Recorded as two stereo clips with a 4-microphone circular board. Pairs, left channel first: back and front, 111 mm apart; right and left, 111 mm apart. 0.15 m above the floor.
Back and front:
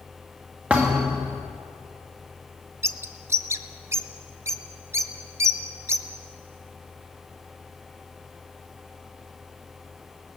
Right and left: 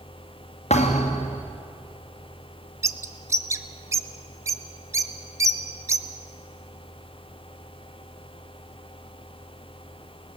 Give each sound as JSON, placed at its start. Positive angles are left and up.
{"t": 0.7, "sound": "a thud", "azimuth_deg": -80, "distance_m": 3.0}
{"t": 2.8, "sound": "a bird", "azimuth_deg": 50, "distance_m": 0.8}